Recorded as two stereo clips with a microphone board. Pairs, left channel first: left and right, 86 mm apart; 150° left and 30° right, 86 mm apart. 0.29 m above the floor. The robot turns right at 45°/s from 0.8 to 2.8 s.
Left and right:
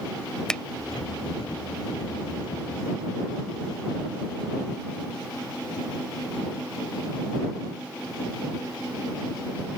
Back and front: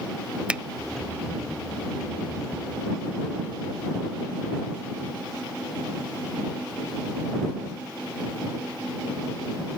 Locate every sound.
0.5 s a finger snap: 25° left